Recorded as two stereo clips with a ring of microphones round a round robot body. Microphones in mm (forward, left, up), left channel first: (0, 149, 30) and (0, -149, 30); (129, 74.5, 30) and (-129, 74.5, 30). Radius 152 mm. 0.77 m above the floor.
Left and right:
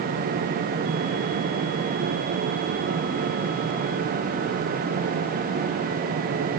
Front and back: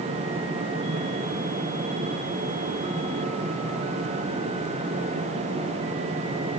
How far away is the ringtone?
I don't hear a ringtone.